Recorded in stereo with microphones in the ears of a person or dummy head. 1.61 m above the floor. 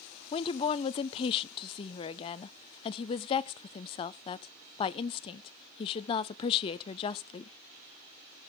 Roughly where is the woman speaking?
Left.